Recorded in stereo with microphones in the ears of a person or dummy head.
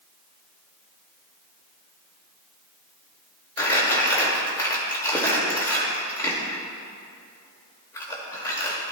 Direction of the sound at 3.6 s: 15° left (ahead or behind).